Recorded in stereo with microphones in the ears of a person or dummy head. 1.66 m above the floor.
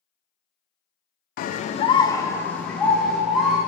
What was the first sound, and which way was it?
A scream, 55° left (ahead or behind).